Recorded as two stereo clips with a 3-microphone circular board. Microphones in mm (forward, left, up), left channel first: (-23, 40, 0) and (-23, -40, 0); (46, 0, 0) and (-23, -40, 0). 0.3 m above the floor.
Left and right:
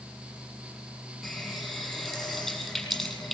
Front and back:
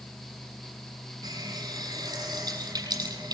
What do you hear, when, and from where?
1.2 s a running tap: 175° left, 7.5 m